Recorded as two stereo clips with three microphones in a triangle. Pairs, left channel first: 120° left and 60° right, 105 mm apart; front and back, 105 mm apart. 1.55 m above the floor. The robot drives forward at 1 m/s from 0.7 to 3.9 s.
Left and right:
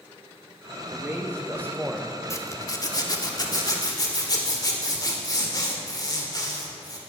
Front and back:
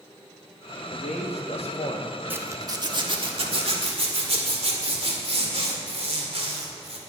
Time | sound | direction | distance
0.9 | a man speaking | 10° left | 2 m
2.3 | a zipper | 130° left | 1.0 m